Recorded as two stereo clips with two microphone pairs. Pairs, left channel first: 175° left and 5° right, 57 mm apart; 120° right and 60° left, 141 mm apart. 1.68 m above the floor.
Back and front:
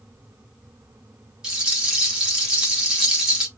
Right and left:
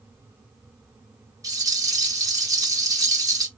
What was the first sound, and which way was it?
A rattle, 55° left.